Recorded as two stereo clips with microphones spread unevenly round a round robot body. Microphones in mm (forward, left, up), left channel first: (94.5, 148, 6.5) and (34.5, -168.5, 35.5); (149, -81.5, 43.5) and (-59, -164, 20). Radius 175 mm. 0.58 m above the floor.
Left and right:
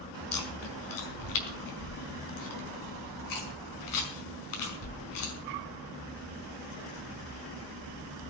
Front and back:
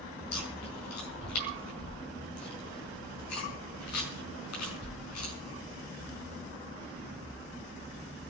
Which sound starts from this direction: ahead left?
Chewing, at 0.3 s.